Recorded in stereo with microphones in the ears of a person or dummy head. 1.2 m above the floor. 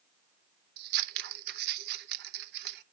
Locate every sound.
0.8 s scissors: 50° right (ahead or behind), 0.6 m